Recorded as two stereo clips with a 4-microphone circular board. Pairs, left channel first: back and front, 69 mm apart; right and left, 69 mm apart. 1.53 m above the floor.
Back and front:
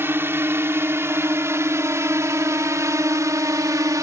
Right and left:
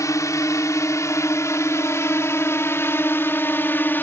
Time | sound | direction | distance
0.0 | a drone | 55° right | ?